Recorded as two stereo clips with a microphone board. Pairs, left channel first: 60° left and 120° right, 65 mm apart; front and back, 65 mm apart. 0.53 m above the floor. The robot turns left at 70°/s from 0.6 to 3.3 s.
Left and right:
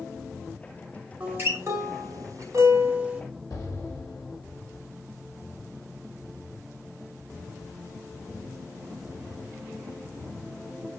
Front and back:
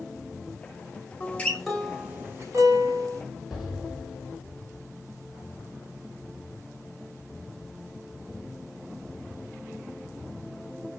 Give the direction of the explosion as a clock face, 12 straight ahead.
9 o'clock.